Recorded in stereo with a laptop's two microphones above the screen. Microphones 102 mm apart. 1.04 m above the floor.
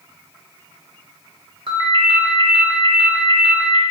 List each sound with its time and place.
1.7 s a ringtone: 50° right (ahead or behind), 0.6 m